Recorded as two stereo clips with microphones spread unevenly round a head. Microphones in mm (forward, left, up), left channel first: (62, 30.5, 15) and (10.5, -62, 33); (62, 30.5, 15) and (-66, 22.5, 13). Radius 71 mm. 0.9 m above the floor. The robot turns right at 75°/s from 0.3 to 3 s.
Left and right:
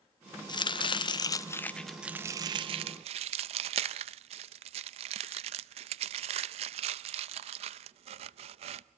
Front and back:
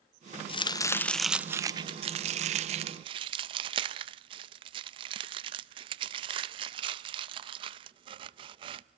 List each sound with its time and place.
0.5 s chopping: 40° left, 0.6 m; by 8.8 s 135° right, 0.6 m